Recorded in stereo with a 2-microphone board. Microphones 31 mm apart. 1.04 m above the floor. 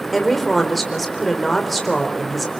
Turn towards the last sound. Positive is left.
turn(degrees=5)  # may be behind; listen again after turning